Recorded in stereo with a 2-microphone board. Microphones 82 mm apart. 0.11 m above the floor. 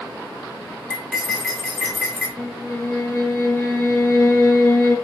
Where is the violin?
30° left (ahead or behind), 0.7 m.